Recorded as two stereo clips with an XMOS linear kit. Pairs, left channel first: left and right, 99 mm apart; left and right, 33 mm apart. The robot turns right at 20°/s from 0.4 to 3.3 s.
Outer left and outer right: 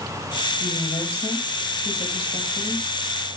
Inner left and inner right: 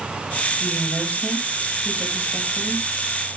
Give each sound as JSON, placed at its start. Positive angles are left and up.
{"t": 0.6, "sound": "a woman speaking", "azimuth_deg": 65, "distance_m": 5.0}